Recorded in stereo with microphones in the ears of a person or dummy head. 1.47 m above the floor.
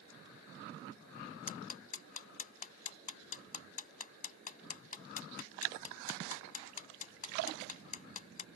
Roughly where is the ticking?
Left.